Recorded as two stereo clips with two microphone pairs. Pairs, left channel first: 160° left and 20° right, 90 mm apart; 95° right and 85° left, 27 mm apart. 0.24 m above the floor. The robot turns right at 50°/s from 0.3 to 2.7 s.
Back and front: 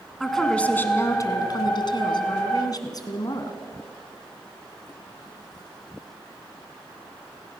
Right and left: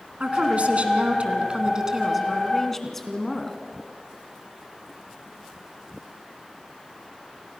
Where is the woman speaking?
70° left, 2 m; by 3.6 s 170° right, 2 m.